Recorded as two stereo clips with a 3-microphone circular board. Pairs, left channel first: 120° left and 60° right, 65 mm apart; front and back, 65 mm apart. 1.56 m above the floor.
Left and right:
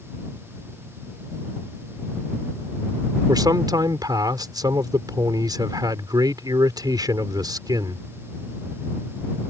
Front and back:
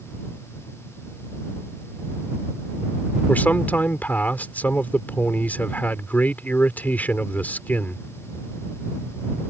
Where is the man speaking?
65° right.